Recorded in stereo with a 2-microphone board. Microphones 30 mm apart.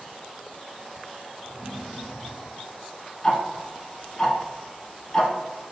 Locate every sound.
1.4 s a drawer: 5° right (ahead or behind), 1.5 m
3.2 s ticking: 20° left (ahead or behind), 0.5 m